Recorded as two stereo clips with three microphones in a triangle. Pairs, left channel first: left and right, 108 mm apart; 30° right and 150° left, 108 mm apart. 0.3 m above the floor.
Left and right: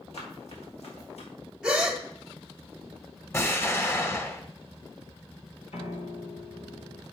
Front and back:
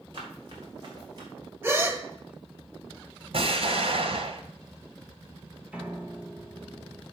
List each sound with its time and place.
0.1 s running footsteps: 105° left, 5 m
1.6 s a gasp: 165° right, 1.3 m
3.3 s an explosion: 155° left, 1.1 m
5.7 s a piano: 70° left, 1.3 m